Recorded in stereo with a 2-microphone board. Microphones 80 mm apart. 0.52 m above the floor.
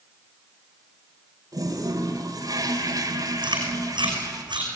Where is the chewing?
85° right, 6 m.